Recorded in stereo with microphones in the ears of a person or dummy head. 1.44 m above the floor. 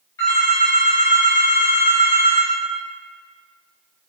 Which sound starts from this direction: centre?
A phone ringing, at 0.2 s.